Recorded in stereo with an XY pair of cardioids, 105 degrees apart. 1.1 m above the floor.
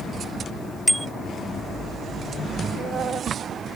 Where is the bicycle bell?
Straight ahead.